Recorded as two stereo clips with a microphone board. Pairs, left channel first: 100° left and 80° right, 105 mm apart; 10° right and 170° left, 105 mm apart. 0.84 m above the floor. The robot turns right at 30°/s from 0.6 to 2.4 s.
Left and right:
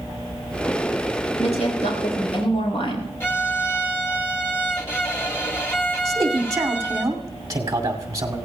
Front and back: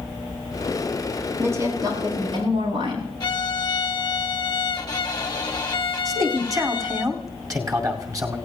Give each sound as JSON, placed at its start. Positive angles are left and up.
{"t": 1.4, "sound": "a woman speaking", "azimuth_deg": 100, "distance_m": 7.5}
{"t": 3.2, "sound": "a violin", "azimuth_deg": 35, "distance_m": 1.6}
{"t": 6.0, "sound": "a man speaking", "azimuth_deg": -135, "distance_m": 2.5}